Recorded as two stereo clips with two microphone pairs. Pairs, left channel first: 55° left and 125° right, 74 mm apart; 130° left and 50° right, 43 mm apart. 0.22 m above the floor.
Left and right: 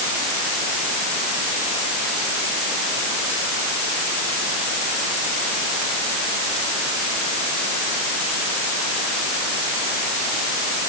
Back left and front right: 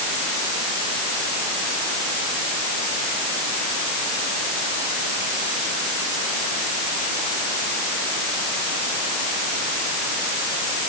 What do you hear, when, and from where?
Only background noise.